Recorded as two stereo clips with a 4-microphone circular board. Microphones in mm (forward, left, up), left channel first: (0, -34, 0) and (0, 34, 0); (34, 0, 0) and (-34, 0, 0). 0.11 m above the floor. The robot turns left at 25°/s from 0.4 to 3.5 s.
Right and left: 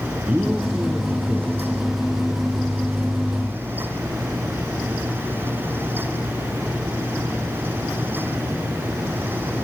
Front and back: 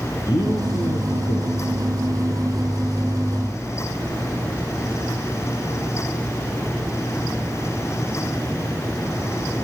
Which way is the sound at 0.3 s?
10° left.